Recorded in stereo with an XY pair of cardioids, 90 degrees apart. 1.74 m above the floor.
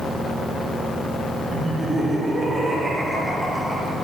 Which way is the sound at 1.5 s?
40° right.